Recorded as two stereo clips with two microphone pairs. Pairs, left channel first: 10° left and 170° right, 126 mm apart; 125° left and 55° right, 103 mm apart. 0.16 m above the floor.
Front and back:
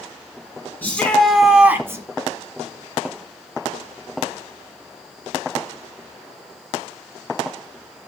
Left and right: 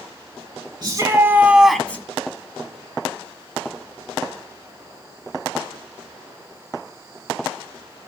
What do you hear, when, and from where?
0.8 s a shout: 55° right, 1.7 m; by 2.0 s 165° left, 1.4 m